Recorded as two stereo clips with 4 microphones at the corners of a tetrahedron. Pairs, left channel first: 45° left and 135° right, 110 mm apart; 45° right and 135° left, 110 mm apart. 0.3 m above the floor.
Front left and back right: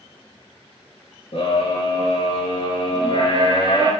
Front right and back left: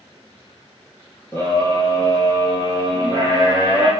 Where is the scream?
20° left, 5 m; by 3.9 s 5° left, 4.5 m.